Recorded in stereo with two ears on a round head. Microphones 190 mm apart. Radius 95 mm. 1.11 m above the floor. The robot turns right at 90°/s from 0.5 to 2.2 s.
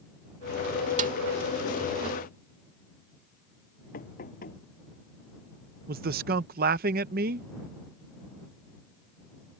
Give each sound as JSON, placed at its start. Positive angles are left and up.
{"t": 1.0, "sound": "a snare drum", "side_deg": -35}
{"t": 3.9, "sound": "knocking", "side_deg": 45}
{"t": 5.9, "sound": "a man speaking", "side_deg": -45}